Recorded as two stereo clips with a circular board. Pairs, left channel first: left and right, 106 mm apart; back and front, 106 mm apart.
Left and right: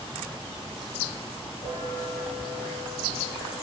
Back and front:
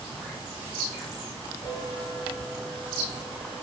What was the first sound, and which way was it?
A bell, 130° left.